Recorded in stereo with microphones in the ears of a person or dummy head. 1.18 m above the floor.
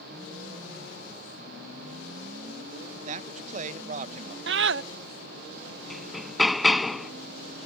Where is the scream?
60° right (ahead or behind).